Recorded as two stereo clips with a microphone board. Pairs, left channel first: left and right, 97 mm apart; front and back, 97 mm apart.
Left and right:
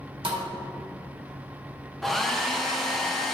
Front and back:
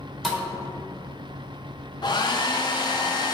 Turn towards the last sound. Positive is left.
turn(degrees=0)